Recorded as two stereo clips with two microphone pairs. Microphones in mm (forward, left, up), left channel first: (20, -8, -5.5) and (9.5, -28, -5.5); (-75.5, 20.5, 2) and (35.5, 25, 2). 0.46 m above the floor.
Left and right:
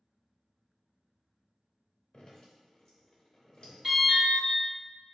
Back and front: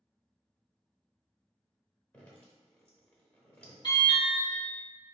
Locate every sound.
2.1 s dripping: 110° left, 0.9 m
3.8 s an alarm: 175° left, 1.9 m